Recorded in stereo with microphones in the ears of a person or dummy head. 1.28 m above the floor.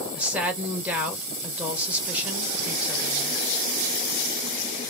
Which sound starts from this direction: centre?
A woman speaking, at 0.1 s.